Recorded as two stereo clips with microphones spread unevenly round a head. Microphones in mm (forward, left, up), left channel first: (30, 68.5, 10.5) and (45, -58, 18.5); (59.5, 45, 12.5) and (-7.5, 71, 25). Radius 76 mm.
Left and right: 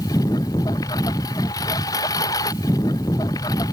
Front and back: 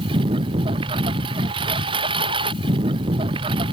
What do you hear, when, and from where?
0.0 s a lawn mower: 165° left